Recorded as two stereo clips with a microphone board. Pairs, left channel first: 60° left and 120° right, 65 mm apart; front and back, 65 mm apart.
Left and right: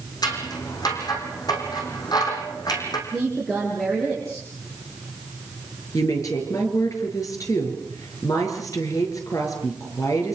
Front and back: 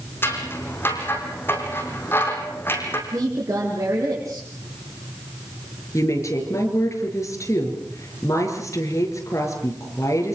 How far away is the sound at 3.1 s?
About 6 m.